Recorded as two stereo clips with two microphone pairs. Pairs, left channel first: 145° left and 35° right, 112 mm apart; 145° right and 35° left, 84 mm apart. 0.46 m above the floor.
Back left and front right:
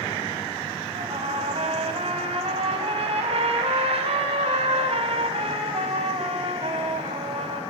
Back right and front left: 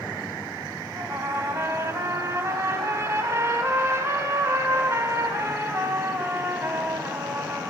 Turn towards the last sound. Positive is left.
turn(degrees=-20)